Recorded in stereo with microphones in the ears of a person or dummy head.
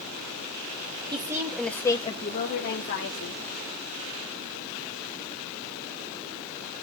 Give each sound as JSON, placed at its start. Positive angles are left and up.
{"t": 1.1, "sound": "a woman speaking", "side_deg": -25, "distance_m": 1.9}